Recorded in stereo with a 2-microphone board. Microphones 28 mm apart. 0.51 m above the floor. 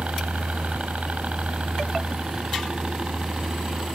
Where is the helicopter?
65° right (ahead or behind); by 4.0 s 35° right (ahead or behind).